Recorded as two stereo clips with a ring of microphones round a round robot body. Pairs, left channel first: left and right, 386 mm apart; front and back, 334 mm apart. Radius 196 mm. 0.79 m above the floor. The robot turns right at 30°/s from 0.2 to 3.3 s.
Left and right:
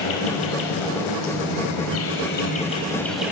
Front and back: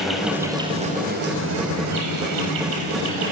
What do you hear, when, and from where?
0.0 s an insect: 90° left, 3.5 m; by 3.3 s 175° right, 3.5 m